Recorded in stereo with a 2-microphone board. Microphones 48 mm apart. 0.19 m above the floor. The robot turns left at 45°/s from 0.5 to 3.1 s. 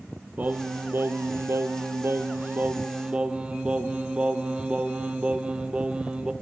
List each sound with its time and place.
0.4 s singing: 40° right, 0.7 m; by 6.3 s 155° right, 0.7 m